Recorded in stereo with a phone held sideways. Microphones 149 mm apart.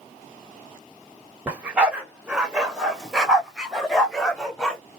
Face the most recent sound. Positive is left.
turn(degrees=5)  # may be behind; listen again after turning